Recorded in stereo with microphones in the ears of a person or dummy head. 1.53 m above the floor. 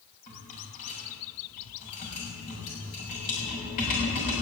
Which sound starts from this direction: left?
A rattle, at 0.3 s.